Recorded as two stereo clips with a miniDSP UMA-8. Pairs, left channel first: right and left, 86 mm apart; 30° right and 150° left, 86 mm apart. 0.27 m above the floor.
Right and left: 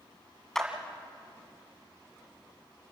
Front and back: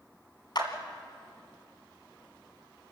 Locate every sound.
0.6 s a clap: 5° right, 2 m